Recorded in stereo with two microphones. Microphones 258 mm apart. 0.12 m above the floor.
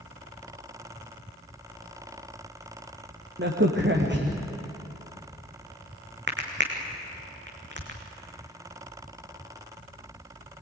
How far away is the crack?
About 3.5 m.